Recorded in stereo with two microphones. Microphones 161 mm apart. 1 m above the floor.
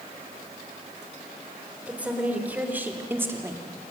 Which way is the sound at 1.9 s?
10° right (ahead or behind).